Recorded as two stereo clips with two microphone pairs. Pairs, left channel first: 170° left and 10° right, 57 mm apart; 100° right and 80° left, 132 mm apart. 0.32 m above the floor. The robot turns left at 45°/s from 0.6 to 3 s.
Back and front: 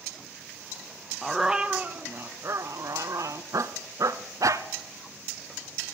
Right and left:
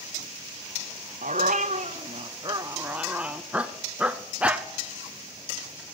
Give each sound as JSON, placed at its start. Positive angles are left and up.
{"t": 1.2, "sound": "a dog barking", "azimuth_deg": 80, "distance_m": 0.8}